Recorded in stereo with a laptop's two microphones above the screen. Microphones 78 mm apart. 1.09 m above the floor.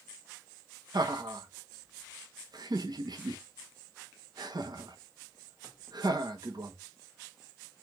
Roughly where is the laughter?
Right.